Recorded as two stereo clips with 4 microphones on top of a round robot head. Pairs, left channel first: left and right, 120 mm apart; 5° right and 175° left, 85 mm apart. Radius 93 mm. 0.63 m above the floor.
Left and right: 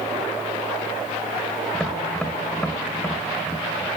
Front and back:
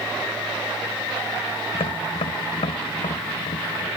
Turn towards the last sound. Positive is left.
turn(degrees=5)